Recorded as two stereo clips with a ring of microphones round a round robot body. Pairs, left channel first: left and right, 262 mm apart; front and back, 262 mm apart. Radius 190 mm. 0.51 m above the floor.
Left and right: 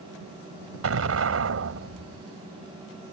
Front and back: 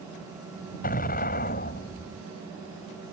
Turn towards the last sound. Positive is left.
turn(degrees=-65)